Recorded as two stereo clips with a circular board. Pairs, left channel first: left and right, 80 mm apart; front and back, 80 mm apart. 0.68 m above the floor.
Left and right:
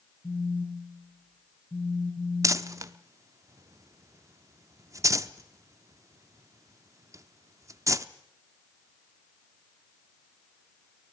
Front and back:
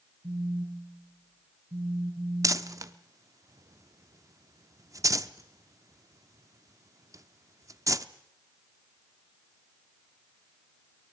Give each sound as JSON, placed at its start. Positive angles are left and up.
{"t": 0.2, "sound": "a phone buzzing", "azimuth_deg": 165, "distance_m": 4.0}
{"t": 2.4, "sound": "crumpling", "azimuth_deg": -135, "distance_m": 0.7}